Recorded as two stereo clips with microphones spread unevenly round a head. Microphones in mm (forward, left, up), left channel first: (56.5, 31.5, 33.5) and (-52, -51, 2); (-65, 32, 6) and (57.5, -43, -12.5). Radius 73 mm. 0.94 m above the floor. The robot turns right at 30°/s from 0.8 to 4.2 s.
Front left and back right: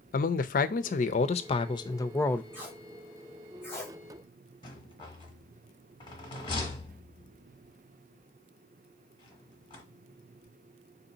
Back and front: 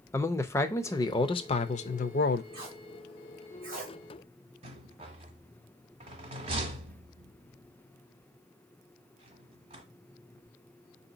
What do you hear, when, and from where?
0.1 s a man speaking: 75° left, 0.5 m; by 2.4 s 120° left, 0.5 m
2.5 s tape being pulled: 75° right, 1.8 m; by 4.0 s 30° right, 1.8 m
4.6 s a rattle: 10° left, 1.1 m